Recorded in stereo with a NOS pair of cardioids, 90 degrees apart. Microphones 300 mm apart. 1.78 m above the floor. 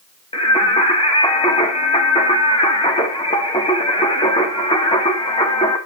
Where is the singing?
20° left, 3 m.